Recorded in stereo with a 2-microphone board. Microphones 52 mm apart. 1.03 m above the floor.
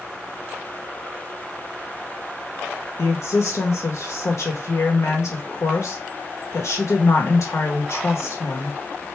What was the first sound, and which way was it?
A woman speaking, 70° left (ahead or behind).